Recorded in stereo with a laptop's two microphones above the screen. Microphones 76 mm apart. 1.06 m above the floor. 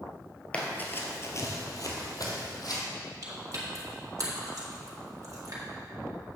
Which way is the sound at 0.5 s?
15° left (ahead or behind).